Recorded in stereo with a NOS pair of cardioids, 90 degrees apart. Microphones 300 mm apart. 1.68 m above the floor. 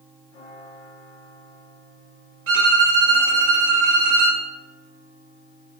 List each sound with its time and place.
2.5 s a violin: 50° right, 2 m